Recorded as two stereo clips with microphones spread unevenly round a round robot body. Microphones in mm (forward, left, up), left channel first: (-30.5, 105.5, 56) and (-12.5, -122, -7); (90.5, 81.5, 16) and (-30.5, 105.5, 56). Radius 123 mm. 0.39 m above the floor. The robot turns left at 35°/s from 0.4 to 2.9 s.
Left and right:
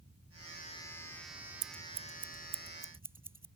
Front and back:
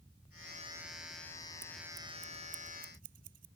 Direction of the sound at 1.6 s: 125° right.